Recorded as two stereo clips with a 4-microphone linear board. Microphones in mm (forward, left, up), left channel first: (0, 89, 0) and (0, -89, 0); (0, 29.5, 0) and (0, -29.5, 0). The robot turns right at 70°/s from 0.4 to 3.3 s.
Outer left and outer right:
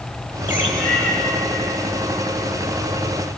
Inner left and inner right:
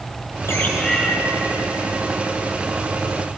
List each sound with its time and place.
0.5 s a bird: 130° left, 2.0 m; by 1.1 s 170° left, 2.0 m